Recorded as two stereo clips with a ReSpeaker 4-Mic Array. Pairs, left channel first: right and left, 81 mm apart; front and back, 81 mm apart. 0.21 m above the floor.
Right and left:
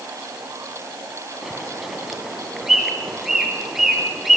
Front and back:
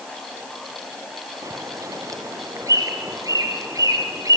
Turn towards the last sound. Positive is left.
turn(degrees=175)